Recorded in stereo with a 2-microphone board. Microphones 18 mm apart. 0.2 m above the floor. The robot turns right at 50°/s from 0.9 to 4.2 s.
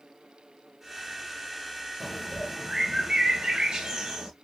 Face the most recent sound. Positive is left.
turn(degrees=-80)